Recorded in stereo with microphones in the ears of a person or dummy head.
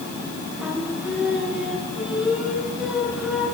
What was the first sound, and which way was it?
Singing, 10° right (ahead or behind).